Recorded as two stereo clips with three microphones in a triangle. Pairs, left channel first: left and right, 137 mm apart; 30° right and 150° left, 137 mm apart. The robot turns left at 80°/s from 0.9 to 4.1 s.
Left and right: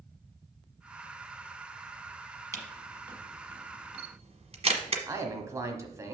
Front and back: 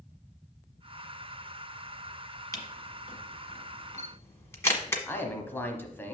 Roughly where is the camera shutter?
Ahead left.